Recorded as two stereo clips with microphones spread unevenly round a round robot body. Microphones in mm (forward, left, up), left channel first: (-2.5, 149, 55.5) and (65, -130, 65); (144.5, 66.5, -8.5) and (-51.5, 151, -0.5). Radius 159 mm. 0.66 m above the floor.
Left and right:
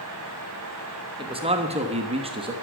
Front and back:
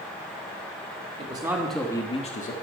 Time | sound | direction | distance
1.2 | a man speaking | 145° right | 1.4 m